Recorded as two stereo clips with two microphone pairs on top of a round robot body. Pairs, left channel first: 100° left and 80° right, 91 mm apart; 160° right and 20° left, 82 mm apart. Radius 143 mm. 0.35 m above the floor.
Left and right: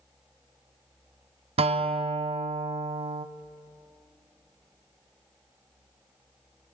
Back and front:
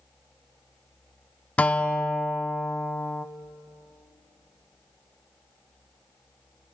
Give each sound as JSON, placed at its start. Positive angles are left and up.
{"t": 1.6, "sound": "a guitar", "azimuth_deg": -85, "distance_m": 0.8}